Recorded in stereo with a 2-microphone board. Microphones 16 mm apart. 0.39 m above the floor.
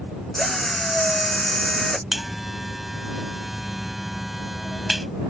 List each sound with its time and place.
0.3 s a drill: 15° left (ahead or behind)
2.1 s a buzzer: 10° right (ahead or behind)